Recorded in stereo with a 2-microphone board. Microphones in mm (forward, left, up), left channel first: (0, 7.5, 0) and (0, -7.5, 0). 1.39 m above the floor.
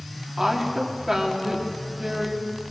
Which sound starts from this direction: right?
A woman speaking, at 0.4 s.